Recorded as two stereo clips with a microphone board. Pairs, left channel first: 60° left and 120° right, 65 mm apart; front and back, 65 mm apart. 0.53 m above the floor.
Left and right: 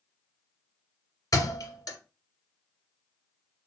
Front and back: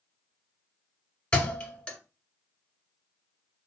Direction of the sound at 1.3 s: 70° left.